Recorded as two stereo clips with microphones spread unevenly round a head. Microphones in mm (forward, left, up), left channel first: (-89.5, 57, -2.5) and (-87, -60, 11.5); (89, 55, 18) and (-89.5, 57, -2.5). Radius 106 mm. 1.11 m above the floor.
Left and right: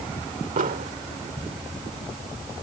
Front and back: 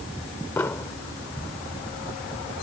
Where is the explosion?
80° right.